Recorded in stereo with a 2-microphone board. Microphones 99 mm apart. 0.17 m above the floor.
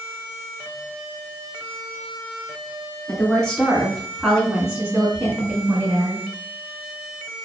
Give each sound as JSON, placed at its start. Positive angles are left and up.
{"t": 3.1, "sound": "a woman speaking", "side_deg": 10, "distance_m": 2.0}